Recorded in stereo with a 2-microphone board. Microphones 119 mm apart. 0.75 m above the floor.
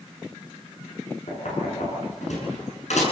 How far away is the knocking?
About 7.5 m.